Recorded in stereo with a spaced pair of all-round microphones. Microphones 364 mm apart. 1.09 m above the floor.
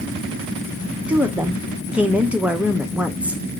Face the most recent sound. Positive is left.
turn(degrees=-5)  # may be behind; listen again after turning